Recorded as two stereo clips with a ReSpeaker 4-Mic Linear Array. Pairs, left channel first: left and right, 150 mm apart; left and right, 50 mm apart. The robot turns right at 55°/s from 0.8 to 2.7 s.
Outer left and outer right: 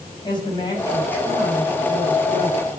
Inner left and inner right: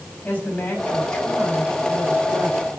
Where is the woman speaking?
150° left, 5.5 m; by 2.8 s 105° right, 5.5 m.